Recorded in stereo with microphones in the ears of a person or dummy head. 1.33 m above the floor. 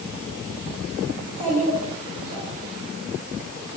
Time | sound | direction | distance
1.2 | a child speaking | 40° right (ahead or behind) | 2.5 m